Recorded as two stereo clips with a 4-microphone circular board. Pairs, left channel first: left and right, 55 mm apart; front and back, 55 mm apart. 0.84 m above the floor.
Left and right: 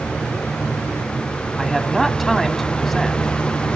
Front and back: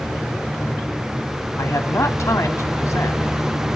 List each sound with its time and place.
1.6 s a man speaking: straight ahead, 2 m